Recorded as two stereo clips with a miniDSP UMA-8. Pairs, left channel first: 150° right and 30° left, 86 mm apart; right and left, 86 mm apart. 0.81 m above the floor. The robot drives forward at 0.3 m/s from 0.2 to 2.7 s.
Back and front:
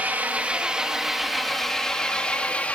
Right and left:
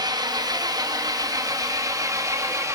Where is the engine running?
95° left, 1.1 m; by 2.8 s 135° left, 1.4 m.